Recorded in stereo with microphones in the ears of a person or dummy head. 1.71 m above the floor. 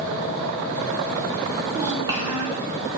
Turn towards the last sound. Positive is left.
turn(degrees=-20)  # may be behind; listen again after turning